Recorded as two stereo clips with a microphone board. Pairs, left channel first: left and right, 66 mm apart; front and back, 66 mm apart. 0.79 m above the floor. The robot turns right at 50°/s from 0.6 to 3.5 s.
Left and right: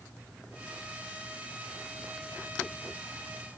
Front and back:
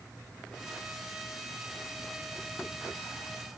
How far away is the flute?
I don't hear a flute.